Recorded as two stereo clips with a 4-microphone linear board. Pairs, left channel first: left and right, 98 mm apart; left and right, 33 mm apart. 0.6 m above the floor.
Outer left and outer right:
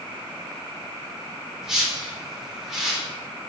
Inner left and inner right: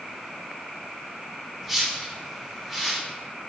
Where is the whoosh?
5° right (ahead or behind), 1.0 m.